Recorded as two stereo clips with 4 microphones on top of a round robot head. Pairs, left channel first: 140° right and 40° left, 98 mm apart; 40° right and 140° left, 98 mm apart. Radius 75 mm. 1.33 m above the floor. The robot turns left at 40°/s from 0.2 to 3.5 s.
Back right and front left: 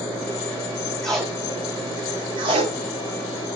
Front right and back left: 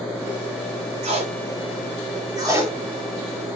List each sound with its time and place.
1.0 s tape being pulled: 135° left, 4.5 m; by 3.6 s 35° left, 4.5 m